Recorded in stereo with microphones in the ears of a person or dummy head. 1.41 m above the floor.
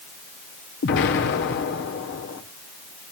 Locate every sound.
0.8 s an explosion: 55° left (ahead or behind), 1.7 m